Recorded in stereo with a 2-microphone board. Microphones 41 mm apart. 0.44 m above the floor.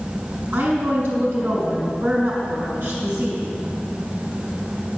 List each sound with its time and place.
0.5 s a woman speaking: 75° right (ahead or behind), 4.5 m